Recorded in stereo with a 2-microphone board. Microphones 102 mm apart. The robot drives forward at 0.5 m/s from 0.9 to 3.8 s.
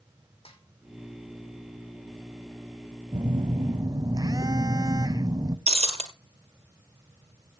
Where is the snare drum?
70° left (ahead or behind), 2.5 m.